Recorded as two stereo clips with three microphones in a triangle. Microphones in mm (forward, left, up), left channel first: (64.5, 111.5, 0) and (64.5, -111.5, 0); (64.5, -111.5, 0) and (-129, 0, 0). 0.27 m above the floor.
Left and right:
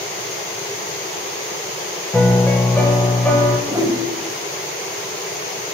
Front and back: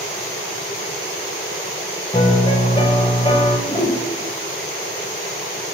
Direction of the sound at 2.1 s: 15° left.